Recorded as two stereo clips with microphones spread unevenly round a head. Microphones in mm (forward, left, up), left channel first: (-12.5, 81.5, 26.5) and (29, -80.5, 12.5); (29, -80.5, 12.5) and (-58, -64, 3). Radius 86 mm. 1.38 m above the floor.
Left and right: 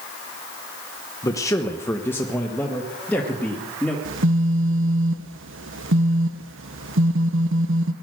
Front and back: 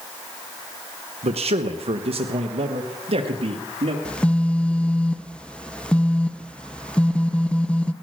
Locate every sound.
1.2 s a man speaking: 175° left, 0.9 m; by 4.0 s 170° right, 2.5 m
4.0 s a phone buzzing: 90° right, 1.0 m